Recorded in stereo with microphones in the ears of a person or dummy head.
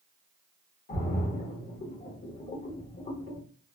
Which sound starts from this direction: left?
A splash, at 0.9 s.